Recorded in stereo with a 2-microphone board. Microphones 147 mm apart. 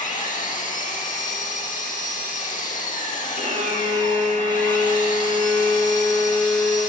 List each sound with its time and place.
0.0 s an engine running: 60° left (ahead or behind), 1.0 m
3.4 s a violin: 50° right (ahead or behind), 0.9 m